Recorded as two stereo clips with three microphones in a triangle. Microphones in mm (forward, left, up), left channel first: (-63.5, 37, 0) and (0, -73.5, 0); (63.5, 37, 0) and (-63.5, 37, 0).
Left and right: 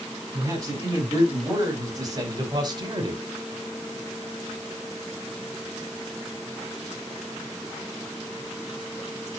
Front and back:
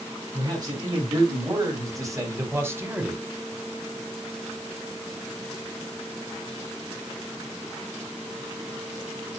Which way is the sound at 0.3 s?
125° right.